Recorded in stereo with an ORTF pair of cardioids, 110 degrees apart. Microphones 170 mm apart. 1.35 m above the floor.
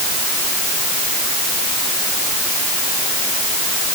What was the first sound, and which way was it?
Only background noise.